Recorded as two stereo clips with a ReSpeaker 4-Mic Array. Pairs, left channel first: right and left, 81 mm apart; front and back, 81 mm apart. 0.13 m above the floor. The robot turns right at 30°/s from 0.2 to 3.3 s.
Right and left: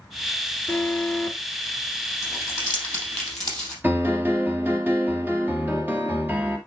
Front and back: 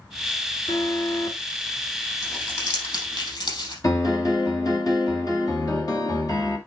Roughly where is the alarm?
Ahead right.